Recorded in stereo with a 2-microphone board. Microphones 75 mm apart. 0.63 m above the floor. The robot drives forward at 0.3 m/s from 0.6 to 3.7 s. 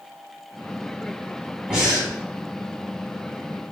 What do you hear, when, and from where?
1.7 s breathing: 10° right (ahead or behind), 1.7 m; by 2.1 s 15° right (ahead or behind), 1.6 m